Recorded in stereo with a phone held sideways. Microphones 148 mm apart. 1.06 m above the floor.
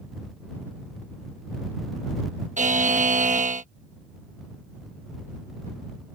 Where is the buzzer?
60° right (ahead or behind).